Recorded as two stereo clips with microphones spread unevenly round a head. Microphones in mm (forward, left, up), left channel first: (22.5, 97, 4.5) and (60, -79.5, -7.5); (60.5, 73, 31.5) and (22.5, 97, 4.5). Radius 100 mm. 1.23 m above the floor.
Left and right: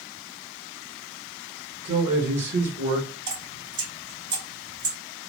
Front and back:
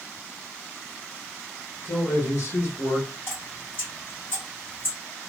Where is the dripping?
60° right, 2.5 m.